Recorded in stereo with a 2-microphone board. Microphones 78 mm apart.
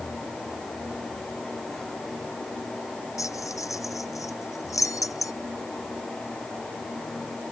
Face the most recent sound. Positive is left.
turn(degrees=45)  # may be behind; listen again after turning